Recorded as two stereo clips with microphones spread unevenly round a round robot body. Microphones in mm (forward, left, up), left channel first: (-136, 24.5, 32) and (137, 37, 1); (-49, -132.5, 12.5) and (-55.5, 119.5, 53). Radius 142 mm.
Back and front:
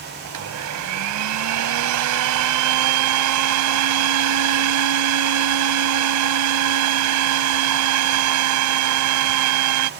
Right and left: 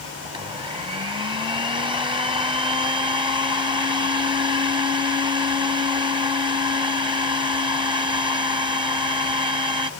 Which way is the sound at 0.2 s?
15° left.